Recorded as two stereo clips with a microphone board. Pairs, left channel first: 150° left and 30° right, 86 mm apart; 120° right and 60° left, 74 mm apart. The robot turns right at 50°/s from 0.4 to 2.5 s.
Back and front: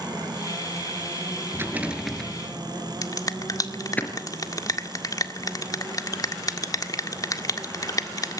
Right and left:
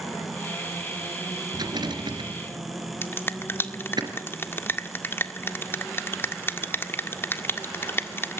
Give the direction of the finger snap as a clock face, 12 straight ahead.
6 o'clock.